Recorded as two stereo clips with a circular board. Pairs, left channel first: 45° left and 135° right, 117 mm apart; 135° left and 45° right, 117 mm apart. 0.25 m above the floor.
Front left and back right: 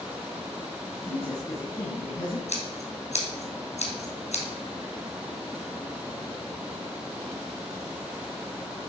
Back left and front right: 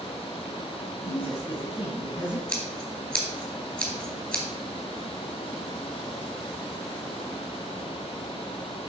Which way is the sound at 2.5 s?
60° left.